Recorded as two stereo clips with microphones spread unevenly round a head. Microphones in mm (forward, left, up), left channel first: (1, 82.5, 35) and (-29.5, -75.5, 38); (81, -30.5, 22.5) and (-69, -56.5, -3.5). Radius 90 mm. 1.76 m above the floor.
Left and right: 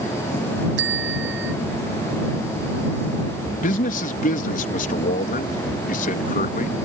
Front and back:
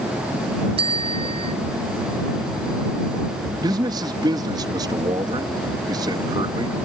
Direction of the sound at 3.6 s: 120° left.